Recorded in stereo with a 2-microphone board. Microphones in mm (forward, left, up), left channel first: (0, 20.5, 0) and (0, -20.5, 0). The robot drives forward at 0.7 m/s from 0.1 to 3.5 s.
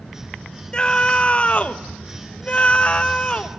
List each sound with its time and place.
0.7 s a scream: 25° left (ahead or behind), 1.4 m